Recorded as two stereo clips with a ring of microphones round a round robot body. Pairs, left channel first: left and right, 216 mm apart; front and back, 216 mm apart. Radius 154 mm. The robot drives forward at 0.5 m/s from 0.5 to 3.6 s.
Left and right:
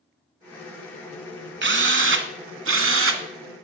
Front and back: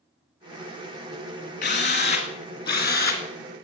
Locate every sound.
1.6 s a drill: 60° right, 2.5 m; by 3.2 s 80° right, 2.5 m